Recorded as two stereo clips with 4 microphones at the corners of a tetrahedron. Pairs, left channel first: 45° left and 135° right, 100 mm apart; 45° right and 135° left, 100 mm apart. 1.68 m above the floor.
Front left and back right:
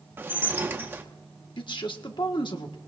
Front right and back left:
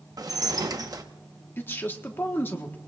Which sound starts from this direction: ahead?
A man speaking, at 1.6 s.